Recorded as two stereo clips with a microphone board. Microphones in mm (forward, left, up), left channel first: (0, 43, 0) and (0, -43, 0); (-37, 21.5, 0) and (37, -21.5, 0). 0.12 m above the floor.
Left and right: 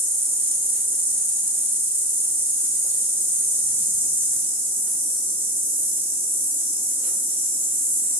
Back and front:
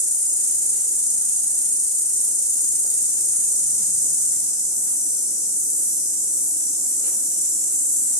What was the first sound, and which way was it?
An insect, 160° right.